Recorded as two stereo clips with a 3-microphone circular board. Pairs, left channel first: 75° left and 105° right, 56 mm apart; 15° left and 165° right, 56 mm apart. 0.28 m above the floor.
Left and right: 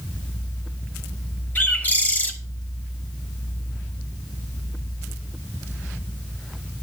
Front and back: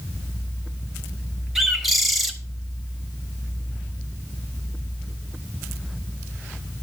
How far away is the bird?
About 0.9 m.